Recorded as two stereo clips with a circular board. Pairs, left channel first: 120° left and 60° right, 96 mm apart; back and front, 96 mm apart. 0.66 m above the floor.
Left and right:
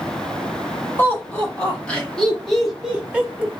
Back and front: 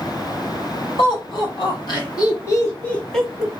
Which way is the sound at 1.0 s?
170° right.